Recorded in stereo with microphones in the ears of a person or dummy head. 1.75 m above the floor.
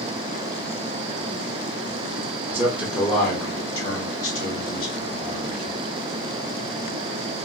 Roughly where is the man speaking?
Centre.